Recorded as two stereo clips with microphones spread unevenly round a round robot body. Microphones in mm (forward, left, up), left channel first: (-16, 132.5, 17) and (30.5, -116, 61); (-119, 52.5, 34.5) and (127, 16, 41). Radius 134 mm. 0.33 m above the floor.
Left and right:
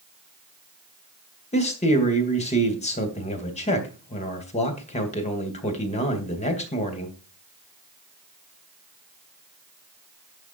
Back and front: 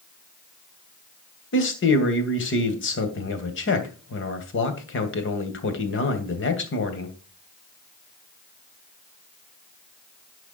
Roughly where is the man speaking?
Behind left.